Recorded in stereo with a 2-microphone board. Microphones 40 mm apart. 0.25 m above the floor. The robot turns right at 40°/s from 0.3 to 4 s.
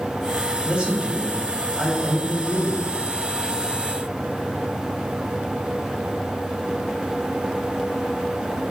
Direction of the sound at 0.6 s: 25° right (ahead or behind).